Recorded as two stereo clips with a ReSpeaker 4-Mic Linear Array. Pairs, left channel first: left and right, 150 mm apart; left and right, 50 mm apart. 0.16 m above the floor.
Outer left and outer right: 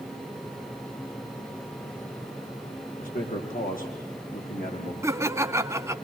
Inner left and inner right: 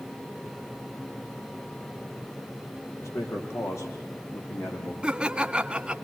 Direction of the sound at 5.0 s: 20° right (ahead or behind).